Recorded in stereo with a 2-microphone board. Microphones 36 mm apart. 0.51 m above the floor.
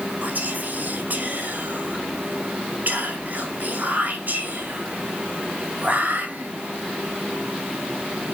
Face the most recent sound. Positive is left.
turn(degrees=-55)  # may be behind; listen again after turning